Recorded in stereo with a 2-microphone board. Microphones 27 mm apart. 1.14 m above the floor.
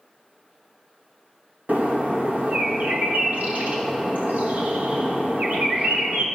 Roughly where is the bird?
Right.